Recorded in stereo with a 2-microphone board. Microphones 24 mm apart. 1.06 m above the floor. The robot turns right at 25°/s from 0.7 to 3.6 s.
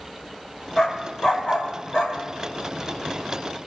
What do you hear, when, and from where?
0.8 s a dog barking: 35° left (ahead or behind), 1.8 m; by 2.2 s 65° left (ahead or behind), 1.8 m